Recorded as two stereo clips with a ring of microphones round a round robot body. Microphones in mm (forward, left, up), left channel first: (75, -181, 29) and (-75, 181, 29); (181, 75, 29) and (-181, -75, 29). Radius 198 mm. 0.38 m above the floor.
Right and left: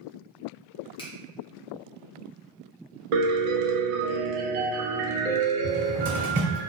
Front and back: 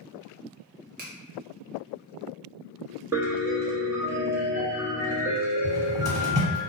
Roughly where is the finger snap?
Behind right.